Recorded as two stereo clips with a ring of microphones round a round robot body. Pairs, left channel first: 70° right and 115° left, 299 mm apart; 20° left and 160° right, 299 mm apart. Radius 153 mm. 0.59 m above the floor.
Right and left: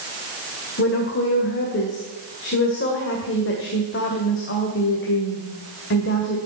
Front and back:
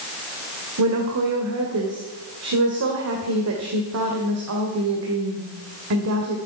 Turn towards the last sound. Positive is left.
turn(degrees=-120)